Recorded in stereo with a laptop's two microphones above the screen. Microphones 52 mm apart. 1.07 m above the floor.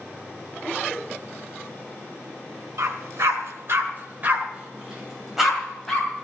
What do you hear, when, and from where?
2.8 s a dog barking: 75° right (ahead or behind), 1.9 m; by 6.2 s 5° left (ahead or behind), 3 m